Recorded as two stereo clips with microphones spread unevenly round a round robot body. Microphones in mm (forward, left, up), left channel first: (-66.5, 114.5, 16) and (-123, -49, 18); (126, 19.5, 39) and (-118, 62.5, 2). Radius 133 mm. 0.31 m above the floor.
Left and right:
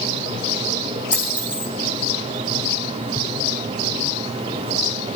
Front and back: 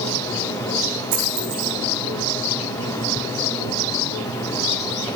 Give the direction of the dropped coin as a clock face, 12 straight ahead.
6 o'clock.